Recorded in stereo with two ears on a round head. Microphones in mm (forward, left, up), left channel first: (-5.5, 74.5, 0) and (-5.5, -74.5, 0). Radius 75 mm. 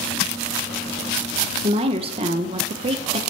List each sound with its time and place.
1.6 s a woman speaking: 35° right (ahead or behind), 0.8 m